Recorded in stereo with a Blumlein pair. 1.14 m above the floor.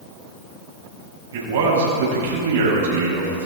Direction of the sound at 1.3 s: 65° right.